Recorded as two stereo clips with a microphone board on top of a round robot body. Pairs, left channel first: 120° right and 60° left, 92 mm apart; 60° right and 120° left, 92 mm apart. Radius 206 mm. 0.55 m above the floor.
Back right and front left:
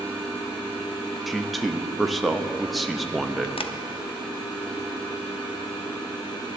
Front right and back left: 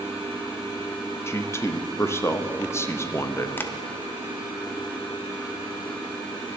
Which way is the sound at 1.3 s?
30° right.